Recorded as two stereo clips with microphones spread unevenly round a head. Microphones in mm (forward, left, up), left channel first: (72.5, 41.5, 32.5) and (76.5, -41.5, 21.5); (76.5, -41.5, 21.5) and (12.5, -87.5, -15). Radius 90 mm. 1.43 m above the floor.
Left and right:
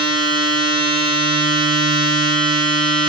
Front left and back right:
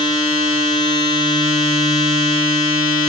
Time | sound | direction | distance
0.0 | a machine running | 70° left | 7 m